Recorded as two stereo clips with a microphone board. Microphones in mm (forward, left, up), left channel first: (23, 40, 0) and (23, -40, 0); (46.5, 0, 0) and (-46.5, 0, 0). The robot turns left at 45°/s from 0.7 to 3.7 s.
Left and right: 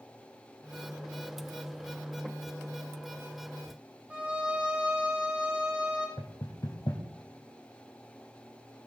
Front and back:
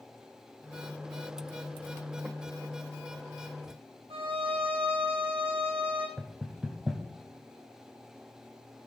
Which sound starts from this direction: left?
Knocking, at 6.2 s.